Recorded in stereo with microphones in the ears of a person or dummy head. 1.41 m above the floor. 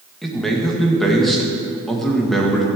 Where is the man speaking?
Centre (ahead or behind), 1.7 m.